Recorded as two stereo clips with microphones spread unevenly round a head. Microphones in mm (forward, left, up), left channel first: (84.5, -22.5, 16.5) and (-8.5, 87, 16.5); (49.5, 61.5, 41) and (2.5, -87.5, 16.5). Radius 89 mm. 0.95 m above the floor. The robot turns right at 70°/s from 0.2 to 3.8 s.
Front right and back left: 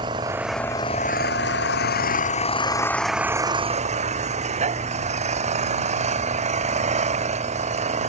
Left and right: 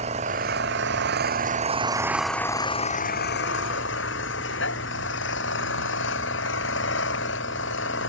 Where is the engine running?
160° right; by 8.1 s 90° left.